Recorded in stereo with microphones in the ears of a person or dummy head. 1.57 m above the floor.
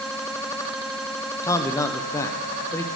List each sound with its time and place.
1.4 s a man speaking: 20° left (ahead or behind), 0.7 m